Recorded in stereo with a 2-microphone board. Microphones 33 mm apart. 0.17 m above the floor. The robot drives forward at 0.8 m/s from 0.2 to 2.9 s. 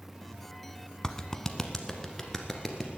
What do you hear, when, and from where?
1.0 s a clap: 20° left (ahead or behind), 0.8 m; by 2.9 s 10° left (ahead or behind), 1.9 m